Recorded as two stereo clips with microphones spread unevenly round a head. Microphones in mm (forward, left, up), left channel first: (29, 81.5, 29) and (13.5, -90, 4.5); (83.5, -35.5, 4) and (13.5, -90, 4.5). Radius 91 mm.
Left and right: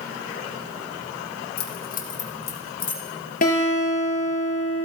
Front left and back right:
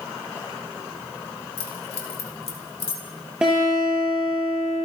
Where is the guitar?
130° left, 6.5 m.